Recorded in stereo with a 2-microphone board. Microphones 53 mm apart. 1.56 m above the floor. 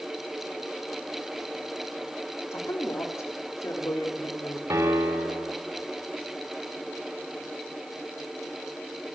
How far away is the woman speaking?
About 3.5 m.